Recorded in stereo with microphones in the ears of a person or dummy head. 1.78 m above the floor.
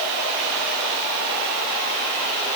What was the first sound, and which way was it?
Only background noise.